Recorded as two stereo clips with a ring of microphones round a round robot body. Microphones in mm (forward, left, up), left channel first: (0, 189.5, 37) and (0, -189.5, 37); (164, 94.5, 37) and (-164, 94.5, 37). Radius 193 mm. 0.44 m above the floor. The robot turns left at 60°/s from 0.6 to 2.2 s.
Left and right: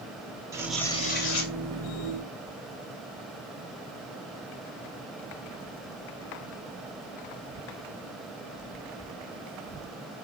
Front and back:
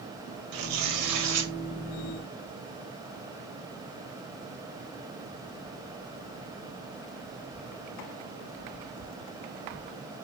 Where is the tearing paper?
170° right, 2.0 m; by 1.5 s 130° left, 2.0 m.